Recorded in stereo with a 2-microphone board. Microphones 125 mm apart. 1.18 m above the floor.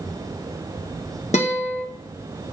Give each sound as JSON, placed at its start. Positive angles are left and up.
{"t": 1.3, "sound": "a guitar", "side_deg": 60, "distance_m": 0.8}